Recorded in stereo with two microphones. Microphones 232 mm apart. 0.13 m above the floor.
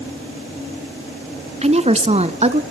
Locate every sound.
1.6 s a woman speaking: 30° right (ahead or behind), 1.2 m